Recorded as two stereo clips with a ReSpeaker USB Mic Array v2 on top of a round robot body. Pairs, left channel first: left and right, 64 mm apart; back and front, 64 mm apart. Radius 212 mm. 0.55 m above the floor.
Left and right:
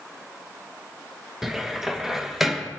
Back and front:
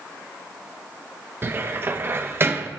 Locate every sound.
1.4 s a cupboard door: 10° right, 1.1 m